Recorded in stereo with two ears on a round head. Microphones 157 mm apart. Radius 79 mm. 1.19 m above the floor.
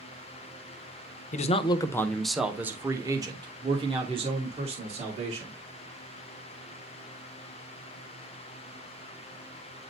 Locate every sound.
1.3 s a man speaking: 45° left (ahead or behind), 0.6 m; by 5.6 s 40° right (ahead or behind), 2 m